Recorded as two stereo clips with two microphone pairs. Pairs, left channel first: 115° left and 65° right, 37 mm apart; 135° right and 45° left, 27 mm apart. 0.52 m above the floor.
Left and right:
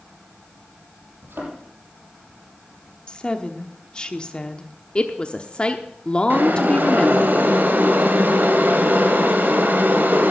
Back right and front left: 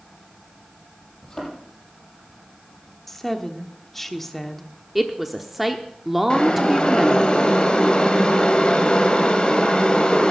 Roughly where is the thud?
Right.